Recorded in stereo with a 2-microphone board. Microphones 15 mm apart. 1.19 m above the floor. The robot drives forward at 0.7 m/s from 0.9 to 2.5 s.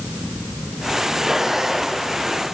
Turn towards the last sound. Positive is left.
No sound to turn to.